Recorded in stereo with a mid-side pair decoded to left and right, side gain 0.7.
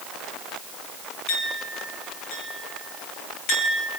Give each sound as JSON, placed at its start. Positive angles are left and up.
{"t": 1.3, "sound": "a clink", "azimuth_deg": 65, "distance_m": 7.5}